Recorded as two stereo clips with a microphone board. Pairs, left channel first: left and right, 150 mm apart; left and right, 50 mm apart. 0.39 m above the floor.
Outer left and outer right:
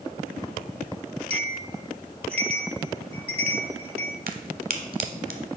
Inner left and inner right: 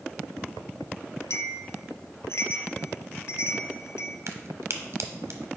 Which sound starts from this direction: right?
A crack, at 4.3 s.